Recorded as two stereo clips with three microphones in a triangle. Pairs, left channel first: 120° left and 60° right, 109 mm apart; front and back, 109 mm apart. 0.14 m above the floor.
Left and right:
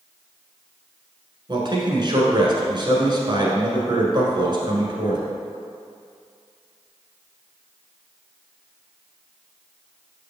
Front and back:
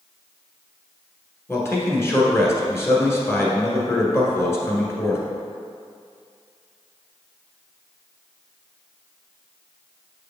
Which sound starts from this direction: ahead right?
A man speaking, at 1.5 s.